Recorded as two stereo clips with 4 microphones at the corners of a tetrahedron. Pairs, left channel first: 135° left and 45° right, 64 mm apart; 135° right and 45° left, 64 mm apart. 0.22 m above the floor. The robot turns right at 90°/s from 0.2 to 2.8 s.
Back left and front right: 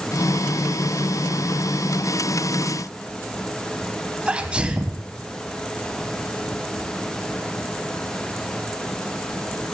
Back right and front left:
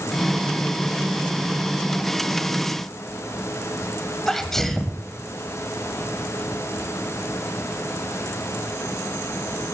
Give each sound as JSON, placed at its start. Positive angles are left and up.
{"t": 4.3, "sound": "a sneeze", "azimuth_deg": -65, "distance_m": 1.0}